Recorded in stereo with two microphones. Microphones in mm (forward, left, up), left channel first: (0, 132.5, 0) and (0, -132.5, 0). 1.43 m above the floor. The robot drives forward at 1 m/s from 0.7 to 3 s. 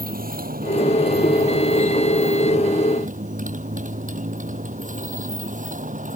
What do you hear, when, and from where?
0.0 s a motorcycle: 35° right (ahead or behind); by 6.2 s 30° right (ahead or behind)